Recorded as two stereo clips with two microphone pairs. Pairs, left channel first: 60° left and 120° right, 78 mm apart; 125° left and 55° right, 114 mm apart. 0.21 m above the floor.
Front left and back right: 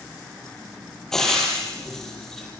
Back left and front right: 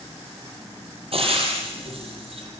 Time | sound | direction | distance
1.1 | frying | 25° right | 7 m